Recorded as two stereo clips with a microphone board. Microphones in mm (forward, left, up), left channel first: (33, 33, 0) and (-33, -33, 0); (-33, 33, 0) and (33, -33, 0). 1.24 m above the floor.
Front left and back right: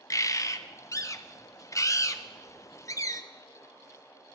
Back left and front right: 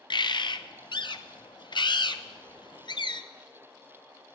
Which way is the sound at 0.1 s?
100° left.